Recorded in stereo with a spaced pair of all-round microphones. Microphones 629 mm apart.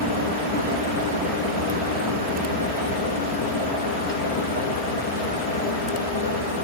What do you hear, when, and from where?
0.0 s a fan: 60° left (ahead or behind), 3 m